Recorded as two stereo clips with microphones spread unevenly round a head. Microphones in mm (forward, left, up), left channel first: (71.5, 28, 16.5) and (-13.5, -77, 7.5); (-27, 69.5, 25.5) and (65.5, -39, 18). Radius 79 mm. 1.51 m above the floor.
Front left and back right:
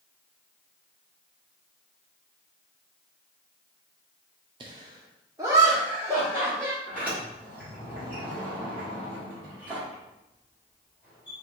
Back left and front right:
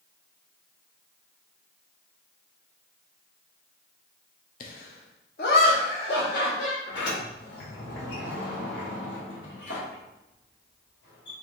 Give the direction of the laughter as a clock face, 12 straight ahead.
6 o'clock.